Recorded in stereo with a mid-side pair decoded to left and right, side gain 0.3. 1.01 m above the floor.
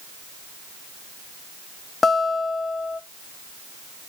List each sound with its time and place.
2.0 s a guitar: 45° left, 1.2 m